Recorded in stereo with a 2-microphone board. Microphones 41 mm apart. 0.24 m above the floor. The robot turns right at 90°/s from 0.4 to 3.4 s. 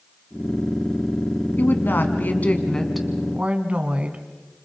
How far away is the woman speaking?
About 2 m.